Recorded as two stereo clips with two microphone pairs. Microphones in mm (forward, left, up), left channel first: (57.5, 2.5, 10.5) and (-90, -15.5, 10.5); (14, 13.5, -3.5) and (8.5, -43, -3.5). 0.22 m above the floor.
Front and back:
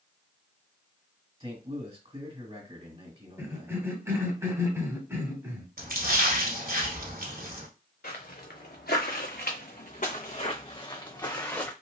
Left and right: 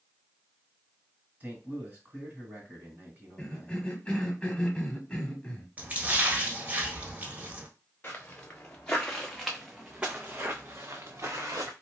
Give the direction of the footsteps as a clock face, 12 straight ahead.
11 o'clock.